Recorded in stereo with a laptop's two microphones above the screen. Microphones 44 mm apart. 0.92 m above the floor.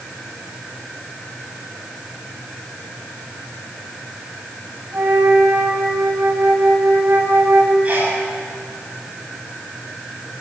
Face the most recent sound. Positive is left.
turn(degrees=-25)  # may be behind; listen again after turning